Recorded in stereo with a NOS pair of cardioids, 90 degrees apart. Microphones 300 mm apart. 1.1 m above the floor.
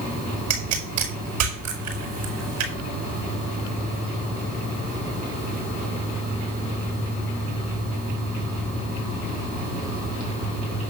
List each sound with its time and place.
0.5 s a pop: 70° right, 5.5 m